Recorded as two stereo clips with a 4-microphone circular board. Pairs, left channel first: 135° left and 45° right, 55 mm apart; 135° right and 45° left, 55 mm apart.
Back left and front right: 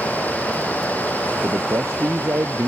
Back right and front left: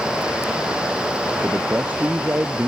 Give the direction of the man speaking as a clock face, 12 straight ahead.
12 o'clock.